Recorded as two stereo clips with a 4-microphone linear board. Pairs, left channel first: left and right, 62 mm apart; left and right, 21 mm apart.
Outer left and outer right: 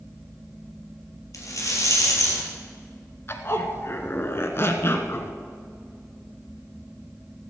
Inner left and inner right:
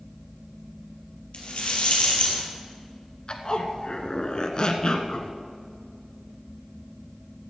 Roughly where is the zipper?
Left.